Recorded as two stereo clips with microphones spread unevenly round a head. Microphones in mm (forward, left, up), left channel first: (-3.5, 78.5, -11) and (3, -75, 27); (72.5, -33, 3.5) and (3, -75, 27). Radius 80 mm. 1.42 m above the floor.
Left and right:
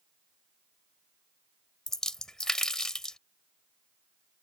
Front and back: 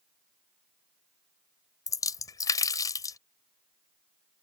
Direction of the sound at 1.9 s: 10° right.